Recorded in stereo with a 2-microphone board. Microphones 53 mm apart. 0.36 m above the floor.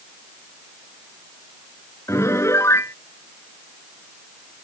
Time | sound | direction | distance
2.1 | a piano | 60° left (ahead or behind) | ?